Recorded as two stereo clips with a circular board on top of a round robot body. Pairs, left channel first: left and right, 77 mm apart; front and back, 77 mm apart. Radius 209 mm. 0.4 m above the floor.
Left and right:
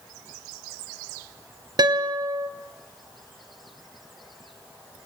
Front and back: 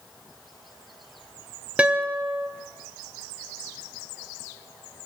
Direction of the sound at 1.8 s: 105° right.